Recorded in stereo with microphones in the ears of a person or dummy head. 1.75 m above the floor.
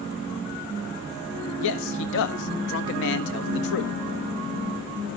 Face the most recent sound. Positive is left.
turn(degrees=70)  # may be behind; listen again after turning